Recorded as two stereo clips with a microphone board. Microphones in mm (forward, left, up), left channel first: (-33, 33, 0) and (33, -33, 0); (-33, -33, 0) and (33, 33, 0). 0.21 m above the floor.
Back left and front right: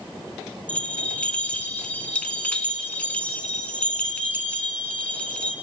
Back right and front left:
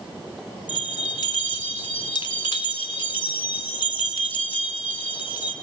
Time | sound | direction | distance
0.7 | a bell | 150° right | 0.8 m